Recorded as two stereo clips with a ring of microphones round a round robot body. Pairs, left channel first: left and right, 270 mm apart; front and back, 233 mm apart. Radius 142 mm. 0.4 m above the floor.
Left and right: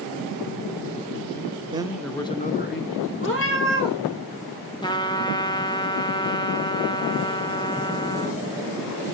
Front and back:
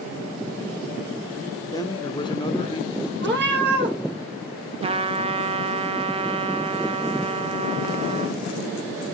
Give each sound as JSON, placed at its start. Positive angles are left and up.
{"t": 1.7, "sound": "a man speaking", "azimuth_deg": -50, "distance_m": 0.8}
{"t": 3.2, "sound": "a cat meowing", "azimuth_deg": 135, "distance_m": 2.5}
{"t": 4.8, "sound": "a trumpet", "azimuth_deg": 145, "distance_m": 0.8}